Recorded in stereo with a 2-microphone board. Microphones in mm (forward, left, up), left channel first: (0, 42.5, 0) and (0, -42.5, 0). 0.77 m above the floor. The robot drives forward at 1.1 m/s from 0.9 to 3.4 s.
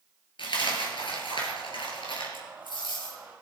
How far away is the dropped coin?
About 3 m.